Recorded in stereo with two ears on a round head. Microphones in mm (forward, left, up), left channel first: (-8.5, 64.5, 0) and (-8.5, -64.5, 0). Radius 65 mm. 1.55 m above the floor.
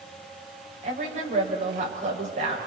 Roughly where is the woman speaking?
Right.